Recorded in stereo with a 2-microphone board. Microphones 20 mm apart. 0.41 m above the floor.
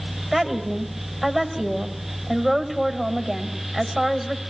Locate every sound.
0.3 s a woman speaking: 5° left (ahead or behind), 2 m